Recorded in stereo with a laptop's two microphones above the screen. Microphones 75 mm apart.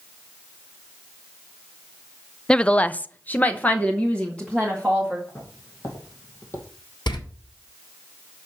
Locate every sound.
2.5 s a woman speaking: 10° left (ahead or behind), 0.6 m; by 5.2 s 15° left (ahead or behind), 1.7 m
5.3 s footsteps: 45° left (ahead or behind), 3.5 m
7.1 s a door slam: 85° left, 1.6 m